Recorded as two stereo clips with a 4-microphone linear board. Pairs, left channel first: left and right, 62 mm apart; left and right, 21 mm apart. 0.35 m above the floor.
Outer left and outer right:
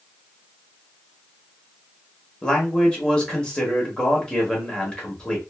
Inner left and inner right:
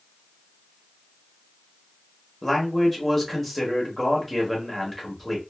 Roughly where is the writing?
No writing in this recording.